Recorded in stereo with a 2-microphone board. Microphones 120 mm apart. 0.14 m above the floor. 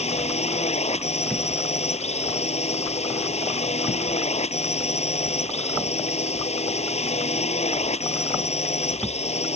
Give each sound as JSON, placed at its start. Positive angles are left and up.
{"t": 0.0, "sound": "a drone", "side_deg": 65}